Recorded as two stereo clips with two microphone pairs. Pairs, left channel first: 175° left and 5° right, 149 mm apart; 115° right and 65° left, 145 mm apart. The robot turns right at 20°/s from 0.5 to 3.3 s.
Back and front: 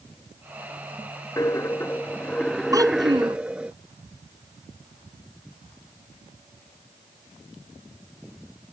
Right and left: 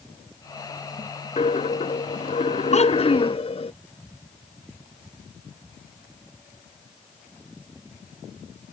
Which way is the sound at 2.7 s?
75° right.